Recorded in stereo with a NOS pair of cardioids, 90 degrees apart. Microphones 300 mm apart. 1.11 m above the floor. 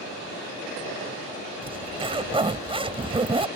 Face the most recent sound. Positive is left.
turn(degrees=-15)